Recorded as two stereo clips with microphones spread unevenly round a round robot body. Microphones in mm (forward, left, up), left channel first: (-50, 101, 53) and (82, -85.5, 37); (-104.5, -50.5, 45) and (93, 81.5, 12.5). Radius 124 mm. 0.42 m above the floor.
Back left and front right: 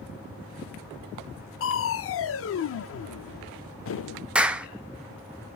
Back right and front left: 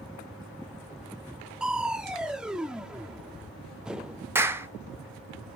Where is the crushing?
115° left, 0.6 m.